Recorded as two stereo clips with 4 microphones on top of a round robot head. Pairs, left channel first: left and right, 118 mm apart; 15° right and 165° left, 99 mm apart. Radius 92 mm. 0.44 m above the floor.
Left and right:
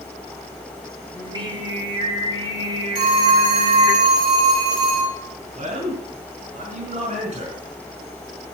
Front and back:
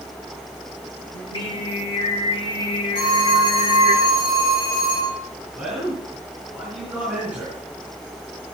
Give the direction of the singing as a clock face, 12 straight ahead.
1 o'clock.